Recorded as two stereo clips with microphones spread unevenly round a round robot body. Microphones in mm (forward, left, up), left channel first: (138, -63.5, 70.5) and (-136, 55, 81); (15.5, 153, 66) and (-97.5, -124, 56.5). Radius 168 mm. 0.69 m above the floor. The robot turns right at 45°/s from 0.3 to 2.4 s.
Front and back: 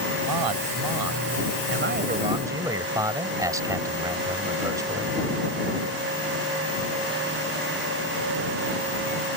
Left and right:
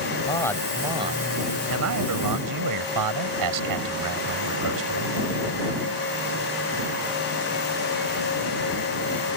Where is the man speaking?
140° left; by 5.2 s 125° right.